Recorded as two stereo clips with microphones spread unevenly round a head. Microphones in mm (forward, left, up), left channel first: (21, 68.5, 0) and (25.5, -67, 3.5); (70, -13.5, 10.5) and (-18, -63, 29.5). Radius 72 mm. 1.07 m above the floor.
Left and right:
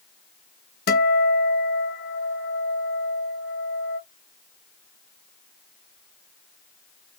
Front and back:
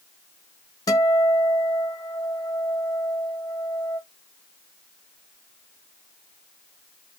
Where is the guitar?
85° left, 1.2 m.